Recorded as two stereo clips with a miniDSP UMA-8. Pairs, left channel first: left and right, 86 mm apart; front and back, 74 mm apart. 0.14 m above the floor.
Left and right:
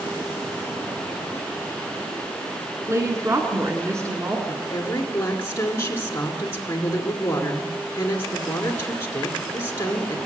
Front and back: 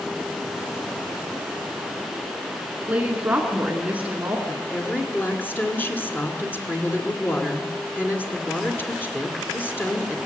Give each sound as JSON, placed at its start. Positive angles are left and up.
{"t": 2.9, "sound": "a woman speaking", "azimuth_deg": -125, "distance_m": 1.8}
{"t": 4.5, "sound": "a woman speaking", "azimuth_deg": 45, "distance_m": 2.0}